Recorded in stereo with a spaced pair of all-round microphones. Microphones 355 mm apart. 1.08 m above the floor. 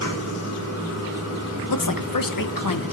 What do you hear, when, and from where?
0.0 s running water: 40° left (ahead or behind), 2.5 m
1.7 s a woman speaking: 65° left (ahead or behind), 0.7 m